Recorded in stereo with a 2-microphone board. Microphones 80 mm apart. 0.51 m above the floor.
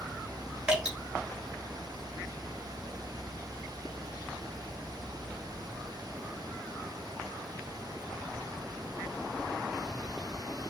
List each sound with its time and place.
0.7 s dripping: 15° right (ahead or behind), 1.4 m